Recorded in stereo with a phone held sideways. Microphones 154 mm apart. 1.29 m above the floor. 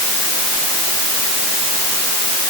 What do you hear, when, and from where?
Only background noise.